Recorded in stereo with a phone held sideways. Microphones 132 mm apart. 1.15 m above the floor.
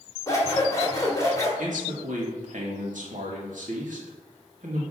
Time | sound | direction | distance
0.3 | scissors | 25° left (ahead or behind) | 1.8 m
1.6 | a man speaking | 75° right (ahead or behind) | 1.8 m